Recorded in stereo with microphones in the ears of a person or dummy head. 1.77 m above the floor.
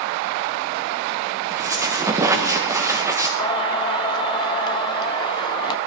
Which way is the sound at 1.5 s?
20° right (ahead or behind).